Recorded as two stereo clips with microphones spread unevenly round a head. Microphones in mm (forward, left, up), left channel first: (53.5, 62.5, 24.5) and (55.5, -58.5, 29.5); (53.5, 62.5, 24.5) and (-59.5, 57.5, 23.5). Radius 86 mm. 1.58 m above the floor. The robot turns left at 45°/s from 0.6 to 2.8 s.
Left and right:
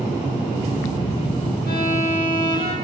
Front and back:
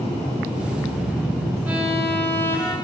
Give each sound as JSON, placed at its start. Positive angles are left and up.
{"t": 1.7, "sound": "a violin", "azimuth_deg": 105, "distance_m": 9.5}